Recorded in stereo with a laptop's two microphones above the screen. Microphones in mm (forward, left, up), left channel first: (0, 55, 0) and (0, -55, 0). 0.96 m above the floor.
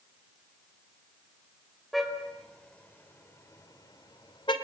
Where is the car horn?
Centre (ahead or behind), 2.5 m; by 4.5 s 50° left (ahead or behind), 2 m.